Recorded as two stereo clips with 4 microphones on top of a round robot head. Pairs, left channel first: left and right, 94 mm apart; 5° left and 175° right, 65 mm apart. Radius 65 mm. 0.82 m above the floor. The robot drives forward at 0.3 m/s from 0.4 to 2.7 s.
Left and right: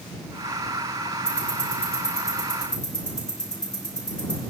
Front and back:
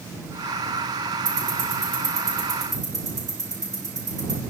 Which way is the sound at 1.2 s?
170° left.